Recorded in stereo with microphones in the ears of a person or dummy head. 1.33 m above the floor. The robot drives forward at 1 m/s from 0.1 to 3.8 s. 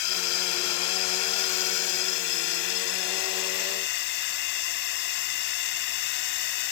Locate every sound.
0.0 s a drone: 80° left; by 6.7 s 60° left (ahead or behind)